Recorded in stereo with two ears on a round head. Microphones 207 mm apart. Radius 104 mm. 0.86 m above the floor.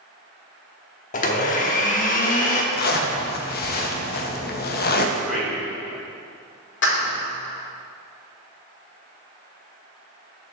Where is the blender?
35° left (ahead or behind), 0.9 m.